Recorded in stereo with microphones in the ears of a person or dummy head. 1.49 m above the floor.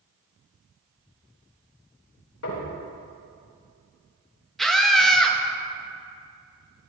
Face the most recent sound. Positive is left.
turn(degrees=0)  # may be behind; listen again after turning